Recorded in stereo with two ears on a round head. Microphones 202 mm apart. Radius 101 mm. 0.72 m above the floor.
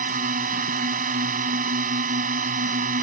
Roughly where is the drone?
Right.